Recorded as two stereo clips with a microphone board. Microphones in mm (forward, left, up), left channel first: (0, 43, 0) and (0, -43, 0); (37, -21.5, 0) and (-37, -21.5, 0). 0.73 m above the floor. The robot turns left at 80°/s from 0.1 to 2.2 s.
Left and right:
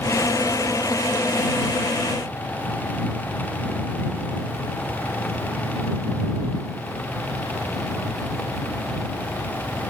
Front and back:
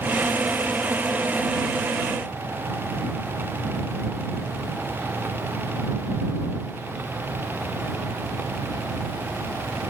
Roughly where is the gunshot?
I don't hear a gunshot.